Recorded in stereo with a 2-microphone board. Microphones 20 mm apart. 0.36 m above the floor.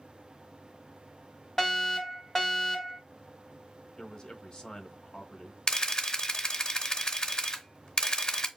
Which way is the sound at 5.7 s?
40° left (ahead or behind).